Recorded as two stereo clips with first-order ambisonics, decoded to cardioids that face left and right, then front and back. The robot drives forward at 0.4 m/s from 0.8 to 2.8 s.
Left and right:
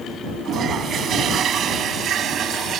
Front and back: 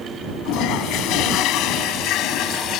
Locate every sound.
0.5 s a toilet flushing: 35° right; by 2.8 s 40° right